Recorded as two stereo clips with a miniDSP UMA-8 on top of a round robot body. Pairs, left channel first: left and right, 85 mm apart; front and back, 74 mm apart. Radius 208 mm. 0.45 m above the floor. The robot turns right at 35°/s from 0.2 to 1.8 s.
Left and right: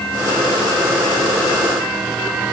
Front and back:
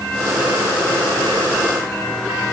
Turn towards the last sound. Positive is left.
No sound to turn to.